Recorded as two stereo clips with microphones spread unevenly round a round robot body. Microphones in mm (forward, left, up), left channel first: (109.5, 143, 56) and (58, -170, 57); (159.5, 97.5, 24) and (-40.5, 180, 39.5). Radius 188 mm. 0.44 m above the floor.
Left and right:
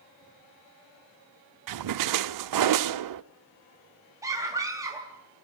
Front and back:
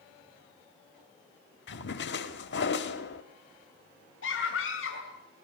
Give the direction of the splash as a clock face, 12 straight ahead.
2 o'clock.